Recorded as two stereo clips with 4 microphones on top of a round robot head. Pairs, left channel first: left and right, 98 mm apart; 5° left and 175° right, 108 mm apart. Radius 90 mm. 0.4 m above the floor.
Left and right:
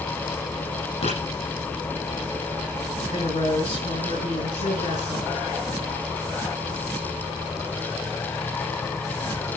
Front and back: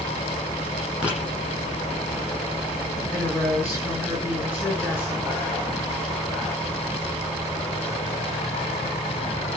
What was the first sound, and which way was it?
Writing, 105° left.